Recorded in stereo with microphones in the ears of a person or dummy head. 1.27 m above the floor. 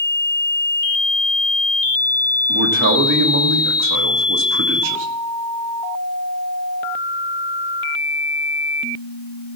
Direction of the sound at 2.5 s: 60° right (ahead or behind).